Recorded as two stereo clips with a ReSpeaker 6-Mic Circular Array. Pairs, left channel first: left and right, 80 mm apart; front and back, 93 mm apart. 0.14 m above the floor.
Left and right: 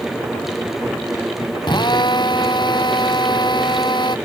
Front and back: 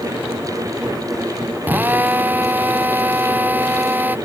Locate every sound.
1.6 s a drill: 110° left